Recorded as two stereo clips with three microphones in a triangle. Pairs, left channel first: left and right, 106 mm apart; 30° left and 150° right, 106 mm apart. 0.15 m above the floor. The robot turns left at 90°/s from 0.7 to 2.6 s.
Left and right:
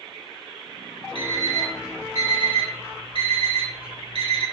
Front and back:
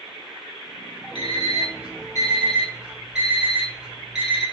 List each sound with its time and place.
1.1 s an alarm clock: 65° left, 1.9 m; by 4.5 s 65° right, 1.9 m